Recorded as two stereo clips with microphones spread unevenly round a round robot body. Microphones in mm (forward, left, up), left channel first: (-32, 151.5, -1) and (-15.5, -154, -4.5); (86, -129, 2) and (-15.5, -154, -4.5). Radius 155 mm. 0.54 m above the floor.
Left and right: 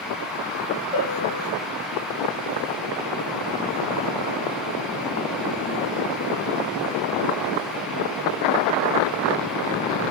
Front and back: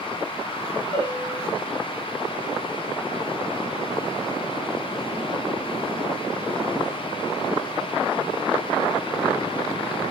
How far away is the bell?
About 6 m.